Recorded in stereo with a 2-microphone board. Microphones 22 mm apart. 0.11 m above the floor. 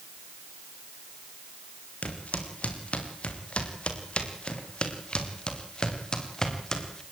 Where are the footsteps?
75° left (ahead or behind), 4.5 m; by 7.0 s 25° left (ahead or behind), 4.5 m.